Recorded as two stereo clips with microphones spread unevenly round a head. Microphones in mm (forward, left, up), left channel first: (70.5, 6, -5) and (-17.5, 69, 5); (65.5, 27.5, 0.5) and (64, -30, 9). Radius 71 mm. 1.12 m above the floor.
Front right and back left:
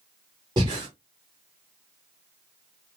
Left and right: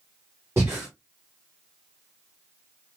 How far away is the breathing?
About 1.2 m.